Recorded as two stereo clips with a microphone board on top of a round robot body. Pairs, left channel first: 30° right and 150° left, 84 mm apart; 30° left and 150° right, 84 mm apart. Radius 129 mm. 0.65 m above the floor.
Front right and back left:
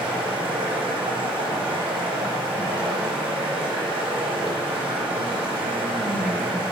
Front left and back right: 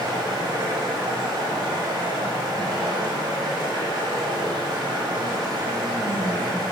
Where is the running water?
165° left, 1.0 m.